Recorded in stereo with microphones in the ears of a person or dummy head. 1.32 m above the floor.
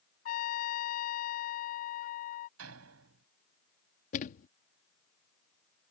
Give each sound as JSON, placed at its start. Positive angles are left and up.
{"t": 0.2, "sound": "a trumpet", "side_deg": 50}
{"t": 2.6, "sound": "a door slam", "side_deg": -85}
{"t": 4.1, "sound": "a thud", "side_deg": 45}